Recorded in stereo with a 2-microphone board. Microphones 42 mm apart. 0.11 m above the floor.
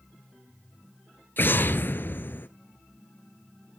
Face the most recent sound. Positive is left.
turn(degrees=50)  # may be behind; listen again after turning